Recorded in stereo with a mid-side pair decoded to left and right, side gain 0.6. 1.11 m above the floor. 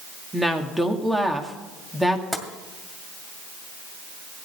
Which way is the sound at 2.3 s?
10° right.